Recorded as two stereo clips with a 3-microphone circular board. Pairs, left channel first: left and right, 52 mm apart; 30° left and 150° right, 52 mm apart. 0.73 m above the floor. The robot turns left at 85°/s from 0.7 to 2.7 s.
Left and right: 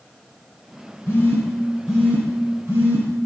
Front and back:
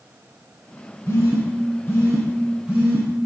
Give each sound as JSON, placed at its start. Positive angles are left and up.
{"t": 1.1, "sound": "a phone buzzing", "azimuth_deg": 50, "distance_m": 3.0}